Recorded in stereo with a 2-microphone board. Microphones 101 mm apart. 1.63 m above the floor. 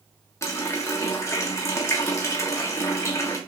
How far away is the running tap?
About 1.1 m.